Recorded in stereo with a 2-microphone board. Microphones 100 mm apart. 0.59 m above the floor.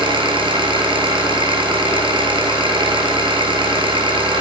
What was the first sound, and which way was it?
An engine running, 55° right (ahead or behind).